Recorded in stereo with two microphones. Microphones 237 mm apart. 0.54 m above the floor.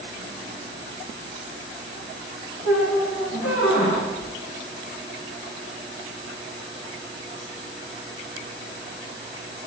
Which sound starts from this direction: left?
A squeak, at 2.6 s.